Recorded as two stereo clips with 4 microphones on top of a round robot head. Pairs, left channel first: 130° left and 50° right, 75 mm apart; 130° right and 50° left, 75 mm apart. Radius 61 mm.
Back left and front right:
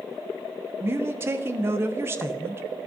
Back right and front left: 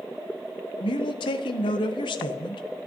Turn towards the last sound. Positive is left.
turn(degrees=-110)